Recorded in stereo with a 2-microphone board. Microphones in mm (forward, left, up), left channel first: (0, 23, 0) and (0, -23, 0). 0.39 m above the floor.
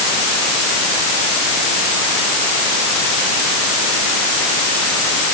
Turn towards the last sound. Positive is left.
No sound to turn to.